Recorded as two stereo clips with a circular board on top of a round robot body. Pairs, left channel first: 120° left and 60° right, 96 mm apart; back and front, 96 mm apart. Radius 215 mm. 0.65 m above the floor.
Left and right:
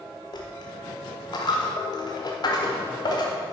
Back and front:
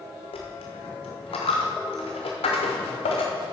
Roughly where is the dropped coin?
Behind.